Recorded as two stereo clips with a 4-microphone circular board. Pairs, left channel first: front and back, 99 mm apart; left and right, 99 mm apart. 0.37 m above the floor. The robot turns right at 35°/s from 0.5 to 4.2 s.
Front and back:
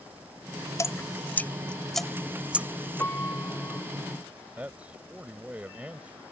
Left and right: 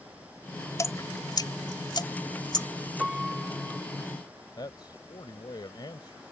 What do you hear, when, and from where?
0.8 s dripping: 45° left; by 2.7 s 110° left
3.0 s a piano: 20° right; by 3.8 s 10° left
4.6 s a man speaking: 110° left